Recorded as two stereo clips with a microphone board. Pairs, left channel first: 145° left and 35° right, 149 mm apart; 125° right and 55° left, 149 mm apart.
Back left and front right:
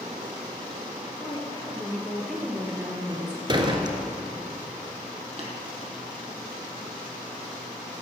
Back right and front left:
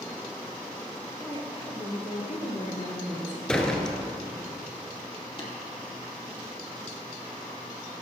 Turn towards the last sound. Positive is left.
turn(degrees=-75)